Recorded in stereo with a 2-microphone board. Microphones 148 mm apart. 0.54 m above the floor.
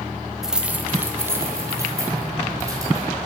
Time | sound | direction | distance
0.4 | keys jangling | 5° right (ahead or behind) | 0.8 m